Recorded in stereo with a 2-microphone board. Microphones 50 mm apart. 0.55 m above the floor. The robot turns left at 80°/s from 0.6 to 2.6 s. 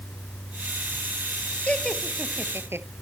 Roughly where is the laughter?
Left.